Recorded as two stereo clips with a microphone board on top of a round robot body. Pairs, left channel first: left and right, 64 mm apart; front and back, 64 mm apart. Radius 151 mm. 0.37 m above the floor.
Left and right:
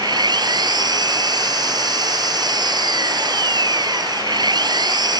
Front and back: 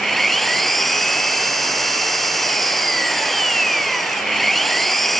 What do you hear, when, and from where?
0.0 s an engine running: 90° right